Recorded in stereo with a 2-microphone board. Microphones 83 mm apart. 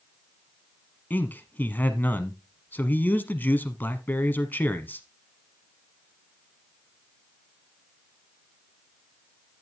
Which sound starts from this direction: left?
A man speaking, at 1.1 s.